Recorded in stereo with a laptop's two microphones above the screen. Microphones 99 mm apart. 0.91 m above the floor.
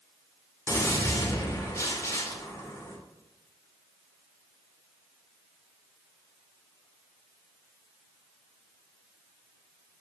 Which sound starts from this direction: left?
A gunshot, at 0.7 s.